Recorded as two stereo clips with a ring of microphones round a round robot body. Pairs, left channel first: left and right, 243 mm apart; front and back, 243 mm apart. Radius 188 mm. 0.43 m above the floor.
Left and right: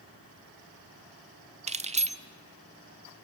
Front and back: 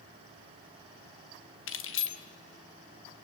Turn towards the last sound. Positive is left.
turn(degrees=-30)